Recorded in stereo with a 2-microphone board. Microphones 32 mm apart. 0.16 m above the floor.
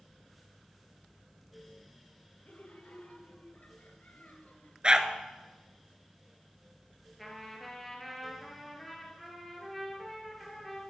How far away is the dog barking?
About 1.0 m.